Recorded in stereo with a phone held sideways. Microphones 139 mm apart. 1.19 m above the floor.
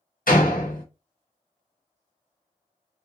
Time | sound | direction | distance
0.3 | a door slam | 80° left | 1.0 m